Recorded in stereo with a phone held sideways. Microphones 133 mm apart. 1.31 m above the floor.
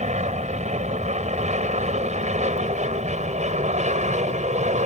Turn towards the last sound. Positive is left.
turn(degrees=-60)  # may be behind; listen again after turning